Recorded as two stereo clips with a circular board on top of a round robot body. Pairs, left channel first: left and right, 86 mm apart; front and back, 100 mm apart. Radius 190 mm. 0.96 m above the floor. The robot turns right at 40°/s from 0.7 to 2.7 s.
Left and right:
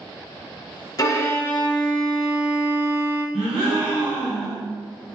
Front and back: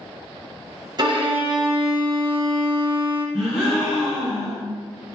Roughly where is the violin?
Behind left.